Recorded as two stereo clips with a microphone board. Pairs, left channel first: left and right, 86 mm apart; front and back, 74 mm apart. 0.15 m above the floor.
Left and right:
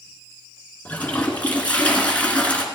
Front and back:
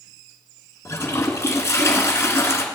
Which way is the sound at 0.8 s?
25° left.